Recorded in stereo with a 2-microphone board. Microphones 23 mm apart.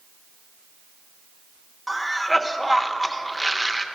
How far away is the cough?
About 0.7 m.